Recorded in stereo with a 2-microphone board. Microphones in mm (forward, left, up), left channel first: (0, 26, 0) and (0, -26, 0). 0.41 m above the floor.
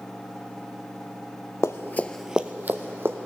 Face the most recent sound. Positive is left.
turn(degrees=-50)  # may be behind; listen again after turning